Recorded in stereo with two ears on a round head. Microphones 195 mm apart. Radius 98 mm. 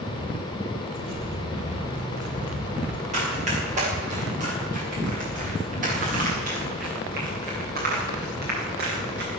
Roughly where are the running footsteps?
Right.